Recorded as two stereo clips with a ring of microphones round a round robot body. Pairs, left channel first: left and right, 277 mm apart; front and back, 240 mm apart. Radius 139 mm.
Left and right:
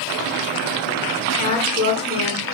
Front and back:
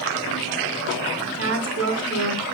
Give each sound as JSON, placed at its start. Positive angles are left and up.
{"t": 1.3, "sound": "a woman speaking", "azimuth_deg": 160, "distance_m": 4.0}